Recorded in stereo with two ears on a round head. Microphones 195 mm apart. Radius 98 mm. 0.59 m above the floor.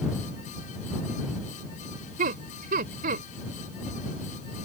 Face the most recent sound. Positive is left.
turn(degrees=-40)  # may be behind; listen again after turning